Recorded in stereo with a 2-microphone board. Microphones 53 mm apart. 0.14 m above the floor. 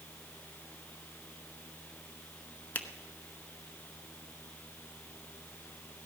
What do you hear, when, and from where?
2.8 s a finger snap: 35° left (ahead or behind), 1.0 m